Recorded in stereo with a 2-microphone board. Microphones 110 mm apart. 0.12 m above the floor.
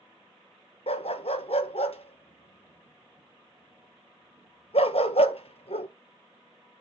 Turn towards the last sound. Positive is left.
turn(degrees=70)  # may be behind; listen again after turning